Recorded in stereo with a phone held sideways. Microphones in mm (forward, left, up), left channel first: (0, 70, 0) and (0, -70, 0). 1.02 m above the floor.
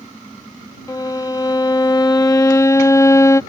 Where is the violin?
25° left (ahead or behind).